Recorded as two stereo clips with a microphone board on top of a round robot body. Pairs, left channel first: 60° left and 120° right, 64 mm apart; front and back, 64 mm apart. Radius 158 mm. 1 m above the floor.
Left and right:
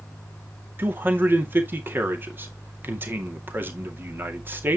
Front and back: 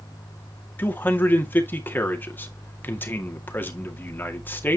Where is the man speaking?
60° right, 2 m.